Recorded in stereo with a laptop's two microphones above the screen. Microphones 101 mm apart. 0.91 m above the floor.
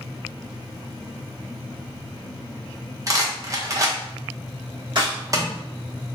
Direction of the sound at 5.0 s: 50° right (ahead or behind).